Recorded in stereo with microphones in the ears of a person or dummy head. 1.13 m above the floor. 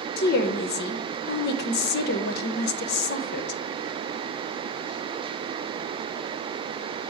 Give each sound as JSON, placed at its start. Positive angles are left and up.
{"t": 0.2, "sound": "a woman speaking", "side_deg": 55, "distance_m": 0.8}